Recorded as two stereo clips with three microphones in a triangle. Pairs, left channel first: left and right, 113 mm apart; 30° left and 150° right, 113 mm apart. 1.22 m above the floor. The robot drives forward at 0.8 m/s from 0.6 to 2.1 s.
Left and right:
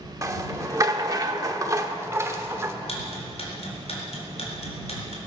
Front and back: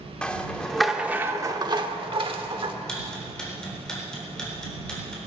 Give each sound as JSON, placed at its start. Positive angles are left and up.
{"t": 0.2, "sound": "a rattle", "azimuth_deg": -50, "distance_m": 1.0}
{"t": 2.9, "sound": "ticking", "azimuth_deg": 115, "distance_m": 4.0}